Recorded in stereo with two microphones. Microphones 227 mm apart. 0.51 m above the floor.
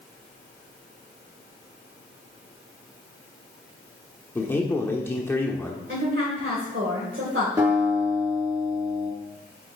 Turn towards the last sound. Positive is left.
turn(degrees=-15)  # may be behind; listen again after turning